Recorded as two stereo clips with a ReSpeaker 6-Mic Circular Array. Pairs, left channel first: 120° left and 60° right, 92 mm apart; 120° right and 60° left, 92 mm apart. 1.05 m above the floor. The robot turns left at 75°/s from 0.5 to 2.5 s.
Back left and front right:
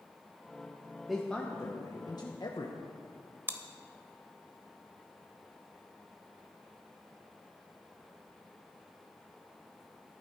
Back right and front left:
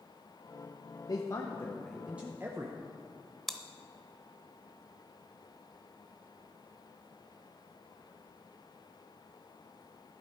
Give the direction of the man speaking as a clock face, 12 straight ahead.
5 o'clock.